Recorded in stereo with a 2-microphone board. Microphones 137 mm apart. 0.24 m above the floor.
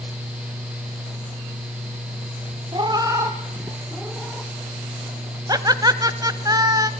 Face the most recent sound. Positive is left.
turn(degrees=-30)  # may be behind; listen again after turning